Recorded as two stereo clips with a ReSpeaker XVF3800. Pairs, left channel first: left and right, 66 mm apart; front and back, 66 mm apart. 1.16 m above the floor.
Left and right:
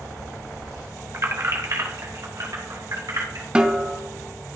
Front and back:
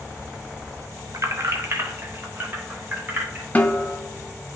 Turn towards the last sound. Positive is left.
turn(degrees=-35)